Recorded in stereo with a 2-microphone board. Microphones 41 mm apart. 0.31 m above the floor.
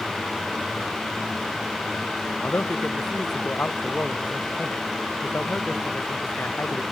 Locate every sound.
2.4 s a man speaking: 55° left (ahead or behind)